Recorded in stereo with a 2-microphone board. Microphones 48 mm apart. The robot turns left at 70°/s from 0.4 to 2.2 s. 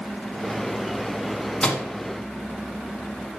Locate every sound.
1.6 s a microwave: 15° left (ahead or behind), 0.9 m